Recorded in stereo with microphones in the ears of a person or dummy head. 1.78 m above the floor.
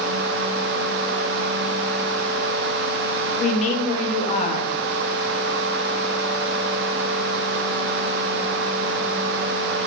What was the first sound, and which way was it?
A woman speaking, 35° left (ahead or behind).